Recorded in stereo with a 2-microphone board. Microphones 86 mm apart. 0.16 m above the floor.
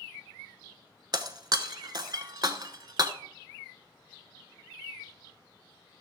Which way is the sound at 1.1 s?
55° right (ahead or behind).